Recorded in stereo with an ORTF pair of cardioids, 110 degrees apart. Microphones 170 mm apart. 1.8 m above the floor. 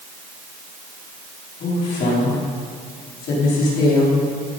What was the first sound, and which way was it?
A woman speaking, 65° left.